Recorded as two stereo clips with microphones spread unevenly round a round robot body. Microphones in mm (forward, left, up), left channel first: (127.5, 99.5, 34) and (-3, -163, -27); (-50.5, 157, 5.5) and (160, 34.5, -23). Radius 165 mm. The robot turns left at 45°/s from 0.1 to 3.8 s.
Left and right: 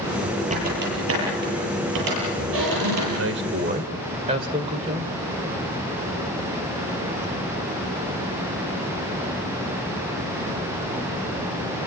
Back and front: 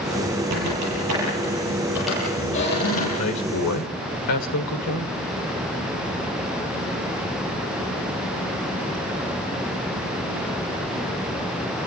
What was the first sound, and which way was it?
A squeak, 50° right.